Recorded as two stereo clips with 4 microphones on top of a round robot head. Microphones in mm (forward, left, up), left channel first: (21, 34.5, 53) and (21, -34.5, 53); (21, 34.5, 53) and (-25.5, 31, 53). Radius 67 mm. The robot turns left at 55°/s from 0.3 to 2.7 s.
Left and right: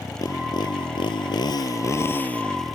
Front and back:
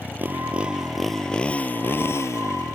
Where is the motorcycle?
135° left; by 2.8 s straight ahead.